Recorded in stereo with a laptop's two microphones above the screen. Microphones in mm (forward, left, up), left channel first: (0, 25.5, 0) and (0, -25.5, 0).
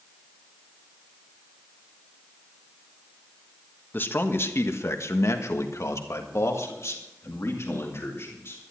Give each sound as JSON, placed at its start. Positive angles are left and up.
{"t": 3.9, "sound": "a man speaking", "side_deg": 40, "distance_m": 1.5}